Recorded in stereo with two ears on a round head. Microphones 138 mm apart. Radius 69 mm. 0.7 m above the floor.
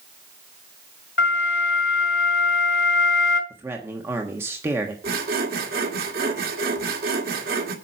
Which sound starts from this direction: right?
Sawing, at 5.0 s.